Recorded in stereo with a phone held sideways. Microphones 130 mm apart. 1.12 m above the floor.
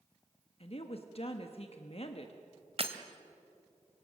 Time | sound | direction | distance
0.6 | a woman speaking | 50° left (ahead or behind) | 1.2 m
2.8 | breaking glass | 50° right (ahead or behind) | 1.4 m